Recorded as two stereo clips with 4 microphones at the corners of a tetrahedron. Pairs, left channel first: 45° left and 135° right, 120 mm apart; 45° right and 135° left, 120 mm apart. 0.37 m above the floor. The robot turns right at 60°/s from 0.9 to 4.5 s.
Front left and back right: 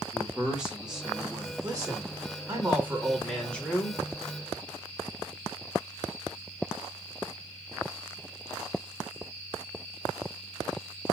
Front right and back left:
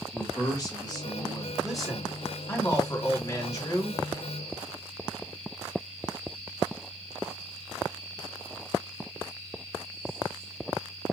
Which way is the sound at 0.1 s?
55° right.